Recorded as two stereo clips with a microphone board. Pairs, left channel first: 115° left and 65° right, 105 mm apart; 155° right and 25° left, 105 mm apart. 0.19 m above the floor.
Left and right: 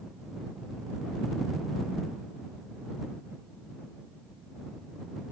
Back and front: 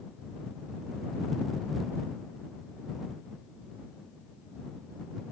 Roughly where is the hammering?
No hammering in this recording.